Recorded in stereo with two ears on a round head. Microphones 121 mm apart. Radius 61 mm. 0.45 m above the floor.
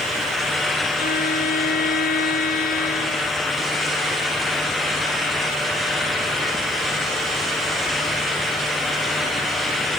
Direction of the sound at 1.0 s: 70° left (ahead or behind).